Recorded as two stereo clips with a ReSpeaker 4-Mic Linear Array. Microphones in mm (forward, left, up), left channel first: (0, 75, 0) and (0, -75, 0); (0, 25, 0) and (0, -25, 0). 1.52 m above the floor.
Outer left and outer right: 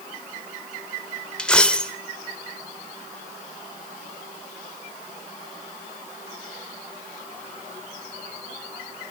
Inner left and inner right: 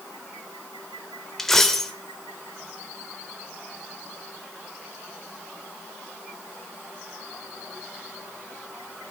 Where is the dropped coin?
5° left (ahead or behind), 1.3 m.